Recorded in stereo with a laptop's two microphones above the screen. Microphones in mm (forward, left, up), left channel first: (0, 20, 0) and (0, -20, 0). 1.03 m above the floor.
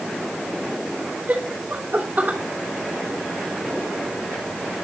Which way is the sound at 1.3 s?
40° right (ahead or behind).